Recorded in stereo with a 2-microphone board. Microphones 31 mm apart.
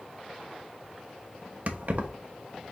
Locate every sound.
1.7 s keys jangling: 50° right (ahead or behind), 0.9 m